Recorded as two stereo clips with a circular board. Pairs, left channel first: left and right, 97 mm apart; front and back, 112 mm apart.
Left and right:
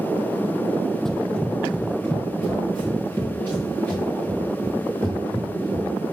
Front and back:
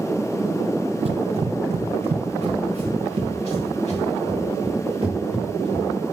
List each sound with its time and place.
1.1 s running footsteps: 175° left, 0.5 m; by 5.9 s 160° left, 4 m